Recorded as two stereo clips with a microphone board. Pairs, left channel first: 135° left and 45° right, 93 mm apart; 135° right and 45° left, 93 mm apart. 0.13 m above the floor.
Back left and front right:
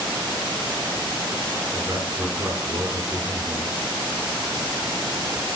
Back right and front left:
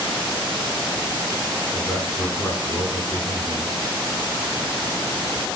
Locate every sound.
1.7 s a man speaking: 100° right, 1.8 m